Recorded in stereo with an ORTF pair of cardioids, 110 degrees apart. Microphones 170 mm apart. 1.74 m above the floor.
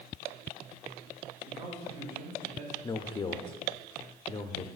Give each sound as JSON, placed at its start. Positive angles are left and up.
{"t": 1.5, "sound": "a man speaking", "azimuth_deg": -65, "distance_m": 1.7}
{"t": 2.8, "sound": "a man speaking", "azimuth_deg": 25, "distance_m": 0.5}